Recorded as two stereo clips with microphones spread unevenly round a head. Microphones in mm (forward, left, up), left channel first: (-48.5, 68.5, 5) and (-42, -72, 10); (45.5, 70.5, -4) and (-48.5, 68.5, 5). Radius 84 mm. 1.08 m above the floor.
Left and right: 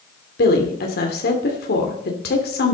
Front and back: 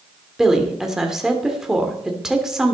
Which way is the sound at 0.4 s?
95° left.